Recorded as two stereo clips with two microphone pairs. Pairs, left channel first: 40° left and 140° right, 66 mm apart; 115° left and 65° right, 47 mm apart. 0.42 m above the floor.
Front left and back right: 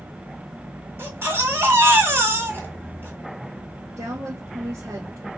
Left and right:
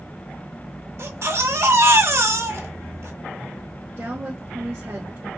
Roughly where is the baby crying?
Right.